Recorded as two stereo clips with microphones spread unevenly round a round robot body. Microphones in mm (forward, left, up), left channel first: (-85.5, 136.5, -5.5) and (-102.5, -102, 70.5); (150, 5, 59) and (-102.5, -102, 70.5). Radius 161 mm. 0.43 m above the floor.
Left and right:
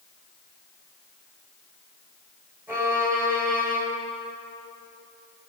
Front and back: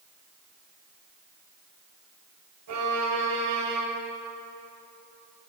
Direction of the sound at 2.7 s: Straight behind.